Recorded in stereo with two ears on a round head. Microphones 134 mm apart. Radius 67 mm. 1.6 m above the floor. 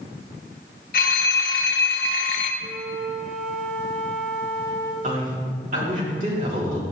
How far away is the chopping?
I don't hear chopping.